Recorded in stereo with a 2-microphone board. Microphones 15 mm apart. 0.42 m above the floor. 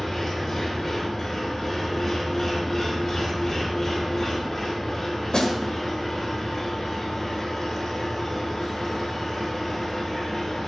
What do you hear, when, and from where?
0.0 s an engine running: 40° left (ahead or behind), 4.5 m
5.3 s a snare drum: 50° left (ahead or behind), 1.6 m